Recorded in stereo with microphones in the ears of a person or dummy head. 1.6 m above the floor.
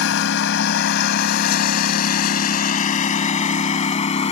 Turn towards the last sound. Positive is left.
turn(degrees=35)  # may be behind; listen again after turning